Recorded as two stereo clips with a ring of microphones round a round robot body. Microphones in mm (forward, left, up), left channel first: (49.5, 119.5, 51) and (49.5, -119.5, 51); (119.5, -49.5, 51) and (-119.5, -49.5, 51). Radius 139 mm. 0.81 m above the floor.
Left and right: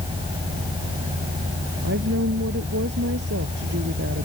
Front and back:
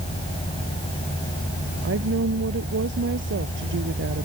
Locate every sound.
1.8 s a woman speaking: 140° right